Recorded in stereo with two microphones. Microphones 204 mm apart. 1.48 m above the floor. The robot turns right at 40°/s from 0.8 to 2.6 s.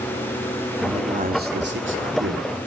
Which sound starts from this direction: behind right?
A man speaking, at 0.8 s.